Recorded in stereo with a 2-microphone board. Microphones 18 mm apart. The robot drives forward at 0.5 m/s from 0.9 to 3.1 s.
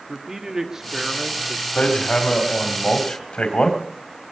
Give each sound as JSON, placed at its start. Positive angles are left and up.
{"t": 0.1, "sound": "a man speaking", "side_deg": -30, "distance_m": 1.3}
{"t": 1.8, "sound": "hammering", "side_deg": 80, "distance_m": 2.5}